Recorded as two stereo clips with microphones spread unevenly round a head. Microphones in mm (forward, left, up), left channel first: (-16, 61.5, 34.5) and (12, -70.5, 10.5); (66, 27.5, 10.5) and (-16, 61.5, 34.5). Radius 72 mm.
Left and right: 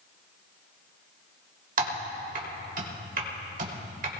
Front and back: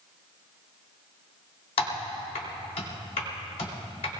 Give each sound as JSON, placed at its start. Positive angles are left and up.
{"t": 1.8, "sound": "typing on a keyboard", "azimuth_deg": -50, "distance_m": 2.5}